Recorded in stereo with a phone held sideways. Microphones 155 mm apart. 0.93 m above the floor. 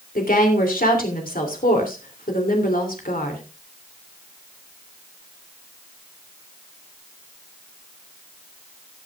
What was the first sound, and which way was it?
A woman speaking, 65° left (ahead or behind).